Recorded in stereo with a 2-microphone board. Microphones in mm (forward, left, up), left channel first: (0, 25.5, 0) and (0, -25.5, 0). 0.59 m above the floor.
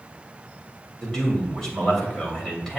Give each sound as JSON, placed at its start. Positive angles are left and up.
{"t": 1.0, "sound": "a man speaking", "side_deg": 15, "distance_m": 2.5}